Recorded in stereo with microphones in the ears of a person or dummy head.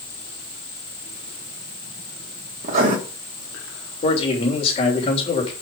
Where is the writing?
45° right (ahead or behind), 2 m.